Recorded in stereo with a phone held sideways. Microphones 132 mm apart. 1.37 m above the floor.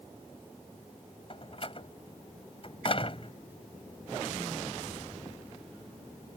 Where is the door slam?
45° left (ahead or behind).